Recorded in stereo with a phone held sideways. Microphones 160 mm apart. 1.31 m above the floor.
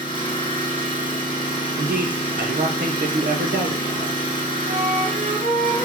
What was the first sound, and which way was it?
An engine running, 30° left (ahead or behind).